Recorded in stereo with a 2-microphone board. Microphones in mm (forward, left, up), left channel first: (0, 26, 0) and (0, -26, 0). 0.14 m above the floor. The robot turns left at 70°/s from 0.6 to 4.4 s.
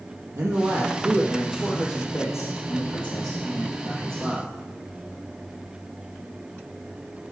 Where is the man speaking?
110° right, 4 m; by 4.5 s 15° right, 4 m.